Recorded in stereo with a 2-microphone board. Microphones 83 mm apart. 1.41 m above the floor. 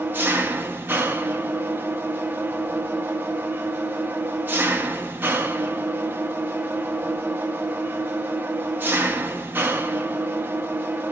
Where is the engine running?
25° right (ahead or behind), 1.0 m.